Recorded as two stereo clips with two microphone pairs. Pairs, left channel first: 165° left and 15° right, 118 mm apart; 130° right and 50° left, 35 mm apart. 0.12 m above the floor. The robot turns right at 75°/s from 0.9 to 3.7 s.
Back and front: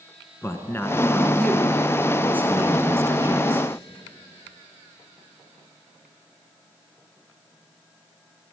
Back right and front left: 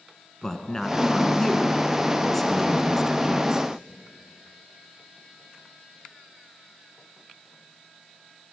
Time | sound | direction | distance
0.4 | a man speaking | 175° right | 1.1 m